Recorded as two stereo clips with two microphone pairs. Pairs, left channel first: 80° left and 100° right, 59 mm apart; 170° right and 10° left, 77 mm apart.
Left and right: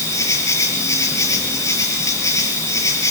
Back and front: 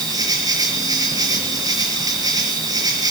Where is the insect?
50° left, 5 m.